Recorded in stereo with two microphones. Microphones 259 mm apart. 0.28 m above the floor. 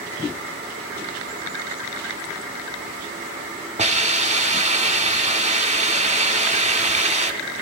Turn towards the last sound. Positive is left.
turn(degrees=-25)  # may be behind; listen again after turning